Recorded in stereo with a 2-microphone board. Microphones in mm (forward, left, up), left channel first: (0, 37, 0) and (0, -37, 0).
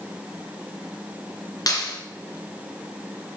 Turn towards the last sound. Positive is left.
turn(degrees=55)  # may be behind; listen again after turning